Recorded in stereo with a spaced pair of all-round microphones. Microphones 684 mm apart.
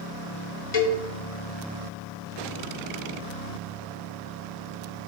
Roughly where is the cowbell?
Left.